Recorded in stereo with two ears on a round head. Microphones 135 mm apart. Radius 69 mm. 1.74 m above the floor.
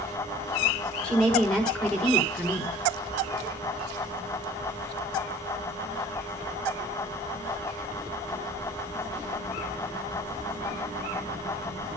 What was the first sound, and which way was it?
A woman speaking, 5° left (ahead or behind).